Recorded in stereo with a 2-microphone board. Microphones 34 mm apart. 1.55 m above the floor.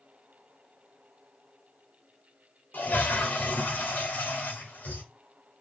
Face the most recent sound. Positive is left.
turn(degrees=70)  # may be behind; listen again after turning